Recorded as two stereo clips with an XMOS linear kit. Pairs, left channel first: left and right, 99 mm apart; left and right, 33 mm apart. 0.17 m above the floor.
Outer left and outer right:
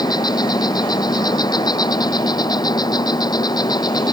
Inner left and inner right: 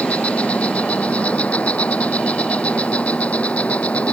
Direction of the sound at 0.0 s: 45° left (ahead or behind).